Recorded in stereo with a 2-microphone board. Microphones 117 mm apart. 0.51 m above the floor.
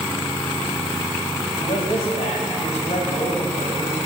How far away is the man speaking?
About 2.5 m.